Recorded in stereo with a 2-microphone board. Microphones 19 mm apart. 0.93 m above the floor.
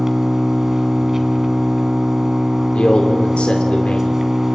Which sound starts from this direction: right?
An engine running, at 0.0 s.